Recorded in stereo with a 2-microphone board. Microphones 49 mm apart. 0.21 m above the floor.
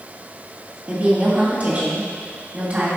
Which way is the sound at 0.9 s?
30° right (ahead or behind).